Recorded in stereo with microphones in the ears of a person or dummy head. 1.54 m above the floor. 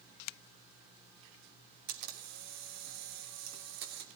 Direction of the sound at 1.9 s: 60° right (ahead or behind).